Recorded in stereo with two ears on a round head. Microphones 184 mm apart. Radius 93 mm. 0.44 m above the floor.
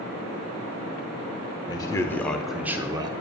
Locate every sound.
1.7 s a man speaking: 20° left (ahead or behind), 1.1 m; by 3.1 s 25° right (ahead or behind), 0.8 m